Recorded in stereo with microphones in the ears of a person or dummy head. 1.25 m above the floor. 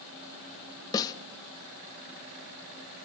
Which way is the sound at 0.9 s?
15° left (ahead or behind).